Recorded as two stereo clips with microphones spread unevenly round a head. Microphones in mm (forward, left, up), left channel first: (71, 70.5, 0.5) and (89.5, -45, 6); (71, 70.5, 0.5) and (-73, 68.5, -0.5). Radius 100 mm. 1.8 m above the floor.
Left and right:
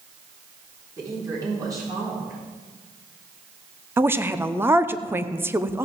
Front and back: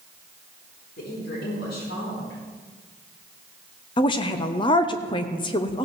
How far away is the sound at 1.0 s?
About 4.5 m.